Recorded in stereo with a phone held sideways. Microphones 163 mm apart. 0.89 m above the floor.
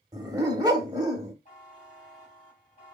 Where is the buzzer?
50° left (ahead or behind), 2.5 m.